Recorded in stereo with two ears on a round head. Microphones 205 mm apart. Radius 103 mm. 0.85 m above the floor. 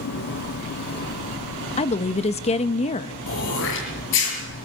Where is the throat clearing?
60° left (ahead or behind), 6.5 m.